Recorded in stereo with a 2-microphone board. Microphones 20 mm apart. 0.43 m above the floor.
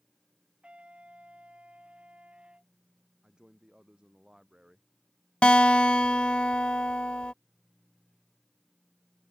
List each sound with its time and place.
0.6 s a trumpet: 60° right (ahead or behind)
3.2 s a man speaking: 35° right (ahead or behind)
5.4 s a guitar: 60° left (ahead or behind)